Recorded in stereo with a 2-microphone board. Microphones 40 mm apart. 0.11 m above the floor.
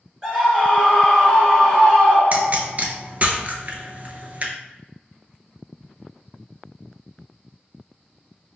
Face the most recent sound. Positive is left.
turn(degrees=-40)  # may be behind; listen again after turning